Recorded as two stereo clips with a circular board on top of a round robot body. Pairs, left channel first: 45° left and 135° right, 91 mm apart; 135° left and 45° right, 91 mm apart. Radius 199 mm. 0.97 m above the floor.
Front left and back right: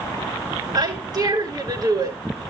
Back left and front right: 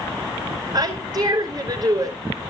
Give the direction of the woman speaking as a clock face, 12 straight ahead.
3 o'clock.